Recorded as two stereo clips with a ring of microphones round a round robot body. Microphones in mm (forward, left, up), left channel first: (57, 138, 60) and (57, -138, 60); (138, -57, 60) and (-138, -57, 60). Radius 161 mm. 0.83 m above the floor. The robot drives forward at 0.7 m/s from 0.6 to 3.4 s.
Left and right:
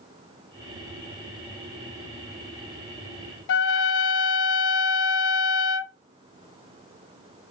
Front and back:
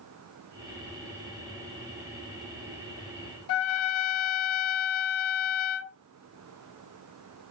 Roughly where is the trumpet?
Ahead left.